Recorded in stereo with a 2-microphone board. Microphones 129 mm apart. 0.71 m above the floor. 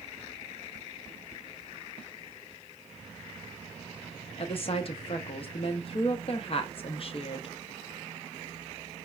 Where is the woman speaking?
45° left (ahead or behind), 0.6 m.